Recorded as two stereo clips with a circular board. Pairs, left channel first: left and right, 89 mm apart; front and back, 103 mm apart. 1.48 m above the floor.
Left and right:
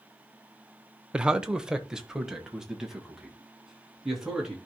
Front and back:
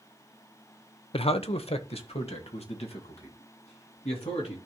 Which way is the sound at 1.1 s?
10° right.